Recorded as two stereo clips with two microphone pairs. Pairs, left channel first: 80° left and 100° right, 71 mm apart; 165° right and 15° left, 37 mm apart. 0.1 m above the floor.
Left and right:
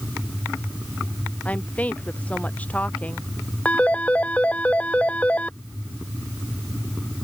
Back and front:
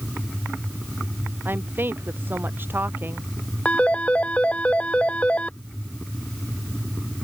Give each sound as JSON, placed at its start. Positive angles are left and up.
{"t": 1.4, "sound": "a woman speaking", "azimuth_deg": 10}
{"t": 3.6, "sound": "a phone ringing", "azimuth_deg": 150}